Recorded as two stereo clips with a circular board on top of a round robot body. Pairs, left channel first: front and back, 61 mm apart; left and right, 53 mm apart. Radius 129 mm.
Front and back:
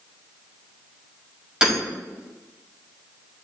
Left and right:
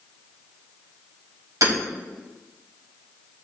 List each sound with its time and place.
1.6 s hammering: 100° right, 5 m